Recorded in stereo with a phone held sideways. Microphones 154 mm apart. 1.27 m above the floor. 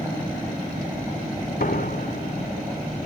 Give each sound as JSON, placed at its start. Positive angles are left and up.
{"t": 1.6, "sound": "a door slam", "side_deg": 75}